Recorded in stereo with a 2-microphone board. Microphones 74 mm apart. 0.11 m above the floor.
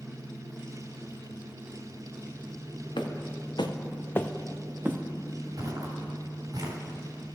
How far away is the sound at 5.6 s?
About 4 m.